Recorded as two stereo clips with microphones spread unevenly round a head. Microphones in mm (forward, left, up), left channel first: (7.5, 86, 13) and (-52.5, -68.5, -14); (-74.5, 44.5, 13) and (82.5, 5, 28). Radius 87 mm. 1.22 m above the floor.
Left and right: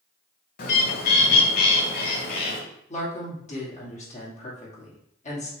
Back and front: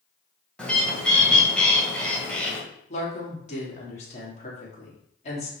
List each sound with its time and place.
0.6 s a bird: 80° left, 1.7 m
2.9 s a woman speaking: 120° left, 2.5 m